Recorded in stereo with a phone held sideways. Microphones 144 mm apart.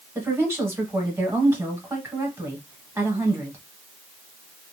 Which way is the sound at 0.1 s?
15° right (ahead or behind).